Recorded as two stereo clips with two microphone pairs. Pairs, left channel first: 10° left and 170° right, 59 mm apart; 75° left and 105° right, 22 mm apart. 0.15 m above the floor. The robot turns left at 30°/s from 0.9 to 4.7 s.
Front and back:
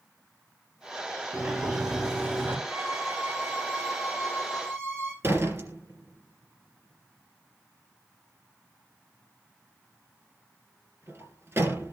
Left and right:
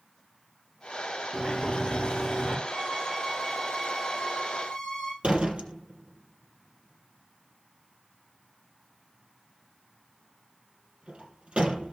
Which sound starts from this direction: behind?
A violin, at 2.7 s.